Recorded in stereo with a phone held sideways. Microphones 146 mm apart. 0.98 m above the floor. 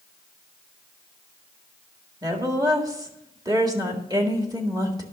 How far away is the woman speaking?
About 1.8 m.